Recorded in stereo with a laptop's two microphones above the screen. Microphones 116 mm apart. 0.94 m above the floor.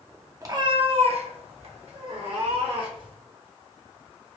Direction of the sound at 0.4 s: 30° right (ahead or behind).